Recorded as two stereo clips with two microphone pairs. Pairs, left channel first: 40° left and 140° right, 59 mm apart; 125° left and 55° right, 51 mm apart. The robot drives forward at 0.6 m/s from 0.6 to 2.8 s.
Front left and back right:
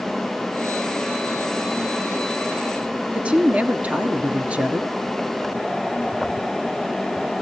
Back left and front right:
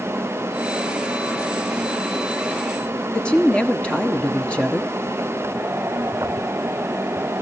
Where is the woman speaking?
170° left, 1.5 m.